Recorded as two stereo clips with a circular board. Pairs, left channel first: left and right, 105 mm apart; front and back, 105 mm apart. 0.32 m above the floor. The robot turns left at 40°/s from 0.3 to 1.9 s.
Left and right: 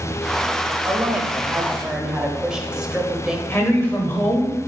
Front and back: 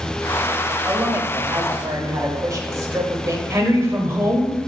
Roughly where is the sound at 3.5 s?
Behind left.